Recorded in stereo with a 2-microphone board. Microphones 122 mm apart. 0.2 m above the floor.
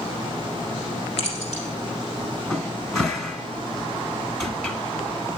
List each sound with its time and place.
1.2 s keys jangling: 60° left (ahead or behind), 4 m
2.5 s a cupboard door: 5° left (ahead or behind), 1.3 m